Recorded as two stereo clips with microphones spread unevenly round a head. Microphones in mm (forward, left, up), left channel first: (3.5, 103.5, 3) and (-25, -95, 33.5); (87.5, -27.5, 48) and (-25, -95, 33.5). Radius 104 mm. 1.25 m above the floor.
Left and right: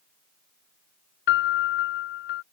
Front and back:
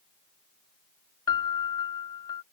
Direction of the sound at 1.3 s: 95° left.